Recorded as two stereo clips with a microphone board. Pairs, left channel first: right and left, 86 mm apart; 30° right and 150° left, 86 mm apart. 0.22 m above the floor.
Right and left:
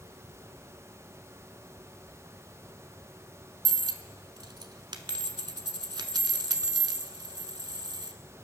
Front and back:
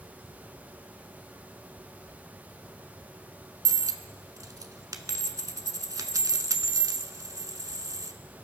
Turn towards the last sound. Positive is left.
turn(degrees=110)